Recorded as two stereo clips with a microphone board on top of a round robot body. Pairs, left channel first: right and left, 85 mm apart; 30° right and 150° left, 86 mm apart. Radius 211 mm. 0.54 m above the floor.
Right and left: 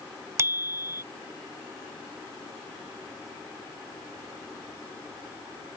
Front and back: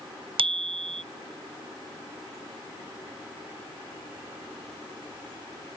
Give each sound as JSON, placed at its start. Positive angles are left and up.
{"t": 0.4, "sound": "a bicycle bell", "azimuth_deg": 150}